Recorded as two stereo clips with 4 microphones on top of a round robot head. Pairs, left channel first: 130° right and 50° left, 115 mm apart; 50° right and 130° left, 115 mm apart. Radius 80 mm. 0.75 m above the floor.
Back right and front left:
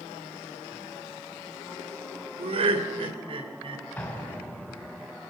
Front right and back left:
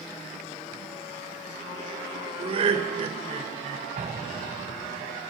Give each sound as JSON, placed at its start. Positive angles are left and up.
{"t": 2.4, "sound": "laughter", "azimuth_deg": 90, "distance_m": 3.5}
{"t": 4.0, "sound": "an explosion", "azimuth_deg": 155, "distance_m": 4.0}